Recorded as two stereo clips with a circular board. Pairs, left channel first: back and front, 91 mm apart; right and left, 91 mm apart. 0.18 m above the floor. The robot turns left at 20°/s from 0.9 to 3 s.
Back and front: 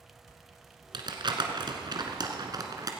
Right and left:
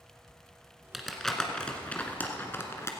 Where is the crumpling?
Straight ahead, 1.4 m; by 2.9 s 35° right, 1.4 m.